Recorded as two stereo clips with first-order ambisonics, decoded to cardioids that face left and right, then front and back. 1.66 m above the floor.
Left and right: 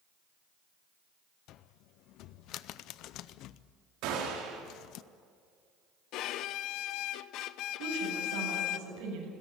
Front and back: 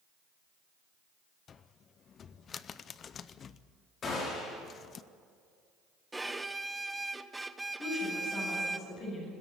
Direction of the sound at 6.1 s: 100° left.